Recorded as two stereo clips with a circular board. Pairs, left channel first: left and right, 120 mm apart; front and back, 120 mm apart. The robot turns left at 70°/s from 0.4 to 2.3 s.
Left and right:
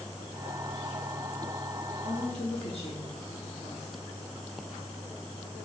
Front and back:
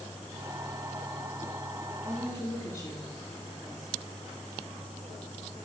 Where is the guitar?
I don't hear a guitar.